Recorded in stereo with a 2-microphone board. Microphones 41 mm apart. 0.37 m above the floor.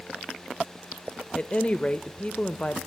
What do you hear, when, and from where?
1.4 s a woman speaking: 30° left (ahead or behind), 0.9 m